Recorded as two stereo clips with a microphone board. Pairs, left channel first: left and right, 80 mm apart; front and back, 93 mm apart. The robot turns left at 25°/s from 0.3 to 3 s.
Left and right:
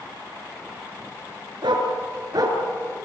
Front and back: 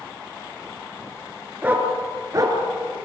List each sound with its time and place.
1.6 s a dog barking: 105° right, 4 m; by 2.6 s 130° right, 4 m